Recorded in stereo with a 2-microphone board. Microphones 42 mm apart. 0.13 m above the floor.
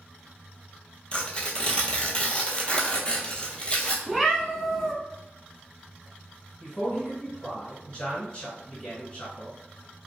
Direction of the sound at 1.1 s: 25° left (ahead or behind).